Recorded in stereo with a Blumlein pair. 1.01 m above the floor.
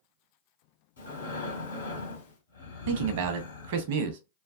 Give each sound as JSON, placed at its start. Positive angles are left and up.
{"t": 1.0, "sound": "breathing", "azimuth_deg": 70, "distance_m": 1.2}
{"t": 2.9, "sound": "a man speaking", "azimuth_deg": -50, "distance_m": 0.7}